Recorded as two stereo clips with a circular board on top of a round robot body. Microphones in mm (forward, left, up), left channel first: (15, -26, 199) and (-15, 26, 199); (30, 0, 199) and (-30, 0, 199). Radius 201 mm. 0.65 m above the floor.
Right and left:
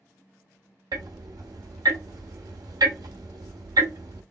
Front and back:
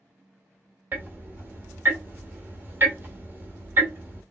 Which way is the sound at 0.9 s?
120° left.